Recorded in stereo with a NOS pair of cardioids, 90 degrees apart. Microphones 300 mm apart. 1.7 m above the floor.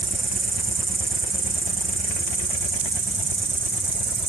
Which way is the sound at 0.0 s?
55° right.